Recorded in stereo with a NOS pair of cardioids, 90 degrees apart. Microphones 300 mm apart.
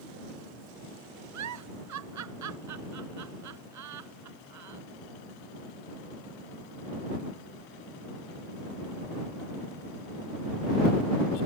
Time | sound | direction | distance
1.3 | a giggle | 70° right | ?